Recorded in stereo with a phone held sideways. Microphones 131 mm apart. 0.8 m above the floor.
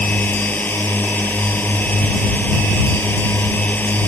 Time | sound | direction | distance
0.0 | a drone | 10° left (ahead or behind) | ?